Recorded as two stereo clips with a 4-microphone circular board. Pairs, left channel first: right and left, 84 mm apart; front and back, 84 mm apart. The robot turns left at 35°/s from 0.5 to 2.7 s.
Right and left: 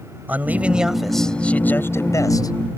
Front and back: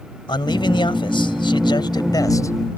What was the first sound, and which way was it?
A man speaking, 20° left.